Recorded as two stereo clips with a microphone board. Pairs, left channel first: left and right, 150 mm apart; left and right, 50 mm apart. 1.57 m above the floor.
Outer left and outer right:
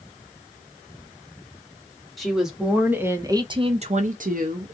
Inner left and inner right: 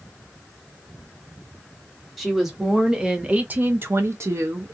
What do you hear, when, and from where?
2.2 s a woman speaking: centre (ahead or behind), 1.1 m; by 4.7 s 65° right (ahead or behind), 0.7 m